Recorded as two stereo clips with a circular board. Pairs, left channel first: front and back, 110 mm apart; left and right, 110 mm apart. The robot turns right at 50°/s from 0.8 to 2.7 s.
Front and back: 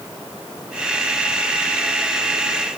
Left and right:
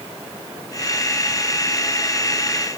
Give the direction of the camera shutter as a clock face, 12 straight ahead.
I don't hear a camera shutter.